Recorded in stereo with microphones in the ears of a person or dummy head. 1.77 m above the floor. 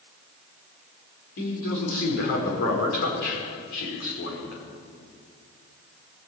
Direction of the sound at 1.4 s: 65° left (ahead or behind).